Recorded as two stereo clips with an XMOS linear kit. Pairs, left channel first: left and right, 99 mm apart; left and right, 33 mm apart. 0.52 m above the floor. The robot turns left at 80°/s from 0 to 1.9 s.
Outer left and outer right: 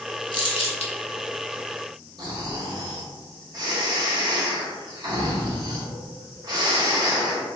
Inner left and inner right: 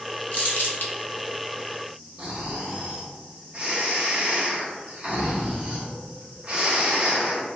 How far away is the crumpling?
About 0.6 m.